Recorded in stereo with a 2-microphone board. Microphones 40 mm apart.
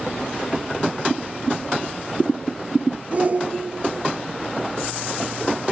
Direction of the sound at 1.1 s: 10° left (ahead or behind).